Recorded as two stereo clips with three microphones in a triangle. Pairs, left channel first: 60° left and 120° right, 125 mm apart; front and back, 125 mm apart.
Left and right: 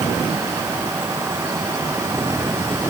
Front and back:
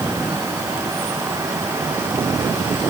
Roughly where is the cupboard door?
I don't hear a cupboard door.